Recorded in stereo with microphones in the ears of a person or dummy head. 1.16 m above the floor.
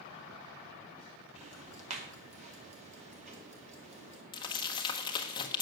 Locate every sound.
1.4 s ticking: 35° right (ahead or behind), 2.0 m
4.3 s crumpling: 25° left (ahead or behind), 1.1 m